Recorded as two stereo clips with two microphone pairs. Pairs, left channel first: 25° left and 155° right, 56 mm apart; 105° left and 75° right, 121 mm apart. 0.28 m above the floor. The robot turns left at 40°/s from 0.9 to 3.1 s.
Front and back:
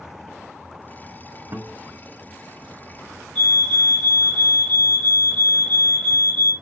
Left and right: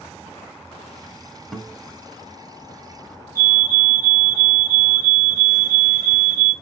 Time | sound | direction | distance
1.5 | a guitar | 170° right | 1.3 m
3.4 | a fire alarm | 35° right | 2.5 m